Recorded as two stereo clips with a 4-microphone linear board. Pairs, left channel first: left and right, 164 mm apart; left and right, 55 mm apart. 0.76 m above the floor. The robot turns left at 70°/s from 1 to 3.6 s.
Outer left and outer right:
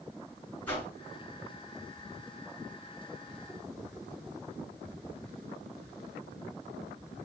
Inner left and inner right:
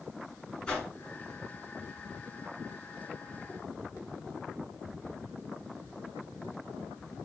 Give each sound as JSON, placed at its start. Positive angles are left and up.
{"t": 0.7, "sound": "a whoosh", "side_deg": 10, "distance_m": 3.0}